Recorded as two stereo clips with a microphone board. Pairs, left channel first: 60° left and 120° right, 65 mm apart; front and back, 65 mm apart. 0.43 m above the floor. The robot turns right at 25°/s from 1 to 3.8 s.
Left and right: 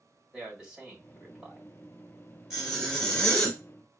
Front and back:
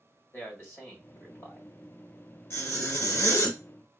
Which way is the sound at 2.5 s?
35° right.